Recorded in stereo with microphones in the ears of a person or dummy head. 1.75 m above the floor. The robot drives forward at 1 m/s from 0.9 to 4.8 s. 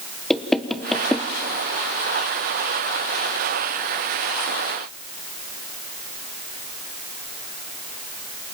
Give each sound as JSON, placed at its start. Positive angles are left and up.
{"t": 0.3, "sound": "knocking", "side_deg": 5, "distance_m": 1.1}